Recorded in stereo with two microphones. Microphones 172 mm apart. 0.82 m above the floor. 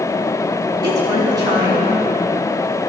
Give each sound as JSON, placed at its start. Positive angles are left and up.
{"t": 0.8, "sound": "a woman speaking", "side_deg": -25, "distance_m": 5.5}